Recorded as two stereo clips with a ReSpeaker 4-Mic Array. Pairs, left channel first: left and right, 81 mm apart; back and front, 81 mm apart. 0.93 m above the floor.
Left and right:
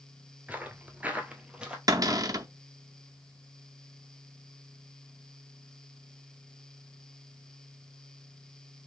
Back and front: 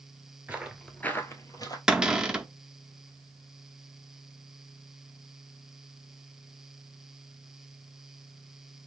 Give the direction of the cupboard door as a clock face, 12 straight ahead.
3 o'clock.